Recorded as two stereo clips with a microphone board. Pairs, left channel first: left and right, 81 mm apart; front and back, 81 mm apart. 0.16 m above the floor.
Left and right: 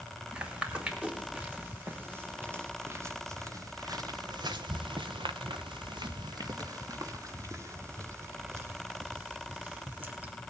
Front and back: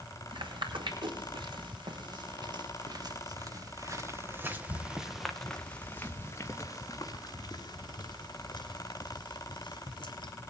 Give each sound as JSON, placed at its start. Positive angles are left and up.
{"t": 0.3, "sound": "footsteps", "azimuth_deg": -165, "distance_m": 3.5}